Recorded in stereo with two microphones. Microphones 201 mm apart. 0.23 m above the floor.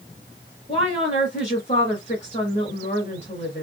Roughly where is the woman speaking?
Left.